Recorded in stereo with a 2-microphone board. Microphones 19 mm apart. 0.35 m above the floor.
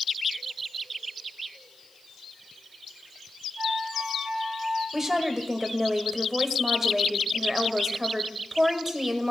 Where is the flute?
40° right (ahead or behind), 4.5 m.